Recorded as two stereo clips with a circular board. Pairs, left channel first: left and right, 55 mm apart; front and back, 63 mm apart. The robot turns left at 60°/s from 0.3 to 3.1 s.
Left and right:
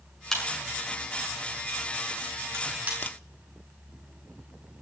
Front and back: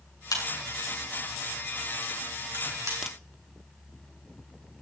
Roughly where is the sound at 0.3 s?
Ahead.